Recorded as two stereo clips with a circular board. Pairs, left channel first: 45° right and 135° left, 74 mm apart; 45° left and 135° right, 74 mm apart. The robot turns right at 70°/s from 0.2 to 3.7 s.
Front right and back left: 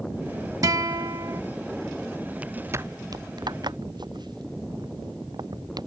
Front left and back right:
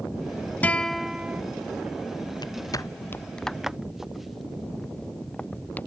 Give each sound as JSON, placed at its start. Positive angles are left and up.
{"t": 0.6, "sound": "a guitar", "azimuth_deg": 110}
{"t": 2.4, "sound": "footsteps", "azimuth_deg": 60}